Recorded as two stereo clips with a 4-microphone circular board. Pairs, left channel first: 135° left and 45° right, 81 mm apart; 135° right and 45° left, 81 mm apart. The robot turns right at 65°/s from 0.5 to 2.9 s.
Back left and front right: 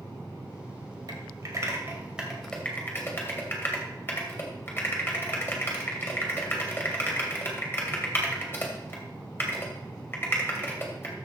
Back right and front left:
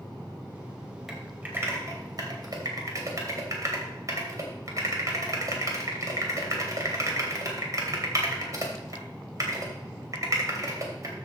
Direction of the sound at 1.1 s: 40° right.